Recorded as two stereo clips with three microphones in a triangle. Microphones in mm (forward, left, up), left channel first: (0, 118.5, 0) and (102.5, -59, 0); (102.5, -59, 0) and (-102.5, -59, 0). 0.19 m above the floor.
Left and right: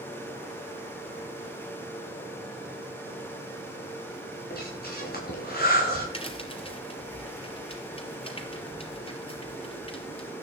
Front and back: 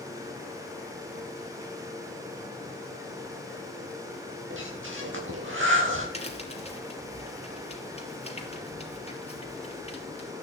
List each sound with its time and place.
4.5 s breathing: 160° left, 8 m
6.1 s a crack: 55° left, 4 m